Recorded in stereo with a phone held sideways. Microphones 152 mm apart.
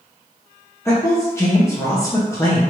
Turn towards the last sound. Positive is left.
turn(degrees=20)  # may be behind; listen again after turning